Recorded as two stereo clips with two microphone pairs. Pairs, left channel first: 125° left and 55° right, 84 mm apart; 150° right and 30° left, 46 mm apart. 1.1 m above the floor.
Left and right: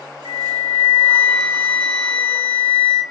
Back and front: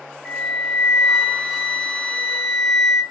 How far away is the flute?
About 0.8 m.